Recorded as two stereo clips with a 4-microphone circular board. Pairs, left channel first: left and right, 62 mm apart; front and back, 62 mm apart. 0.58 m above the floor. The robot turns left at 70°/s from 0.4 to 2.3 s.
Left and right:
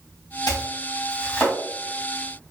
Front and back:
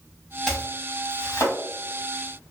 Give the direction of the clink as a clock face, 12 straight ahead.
I don't hear a clink.